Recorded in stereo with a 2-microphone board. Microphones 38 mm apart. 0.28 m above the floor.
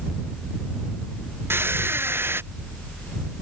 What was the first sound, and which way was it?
A squeak, 75° right (ahead or behind).